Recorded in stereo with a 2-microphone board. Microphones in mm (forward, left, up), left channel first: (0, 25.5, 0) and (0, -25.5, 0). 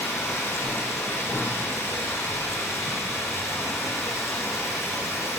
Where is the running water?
75° left (ahead or behind), 9.5 m.